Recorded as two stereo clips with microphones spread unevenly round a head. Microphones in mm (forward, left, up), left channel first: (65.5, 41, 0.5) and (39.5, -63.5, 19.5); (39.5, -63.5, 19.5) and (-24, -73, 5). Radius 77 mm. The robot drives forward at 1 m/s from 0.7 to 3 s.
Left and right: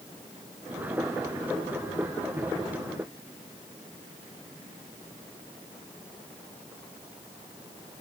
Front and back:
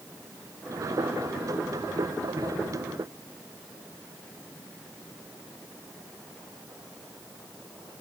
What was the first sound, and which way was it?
Only background noise.